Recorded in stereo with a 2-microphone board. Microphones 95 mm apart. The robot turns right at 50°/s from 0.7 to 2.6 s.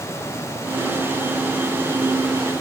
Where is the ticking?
No ticking in this recording.